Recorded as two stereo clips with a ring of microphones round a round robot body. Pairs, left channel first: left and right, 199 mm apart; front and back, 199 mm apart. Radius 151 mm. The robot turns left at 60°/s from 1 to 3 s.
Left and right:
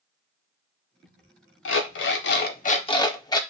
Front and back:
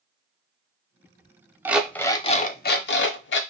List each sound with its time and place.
1.6 s an alarm clock: 100° left, 0.6 m; by 3.4 s 20° left, 0.6 m